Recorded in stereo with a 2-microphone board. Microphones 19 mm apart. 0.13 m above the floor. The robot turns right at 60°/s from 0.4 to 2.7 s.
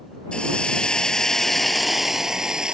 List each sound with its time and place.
0.3 s a hiss: 95° left; by 2.7 s 125° right